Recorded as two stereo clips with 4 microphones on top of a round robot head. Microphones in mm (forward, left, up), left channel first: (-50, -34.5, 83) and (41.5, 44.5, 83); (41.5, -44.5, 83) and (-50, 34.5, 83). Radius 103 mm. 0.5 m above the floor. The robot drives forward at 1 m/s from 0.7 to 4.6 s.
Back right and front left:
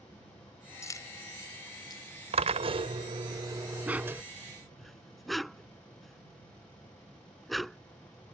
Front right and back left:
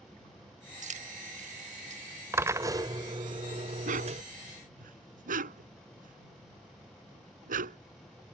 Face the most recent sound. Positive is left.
turn(degrees=130)